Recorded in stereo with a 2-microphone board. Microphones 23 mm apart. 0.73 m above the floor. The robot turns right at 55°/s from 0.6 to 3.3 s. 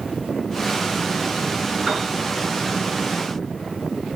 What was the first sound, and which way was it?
A piano, 10° right (ahead or behind).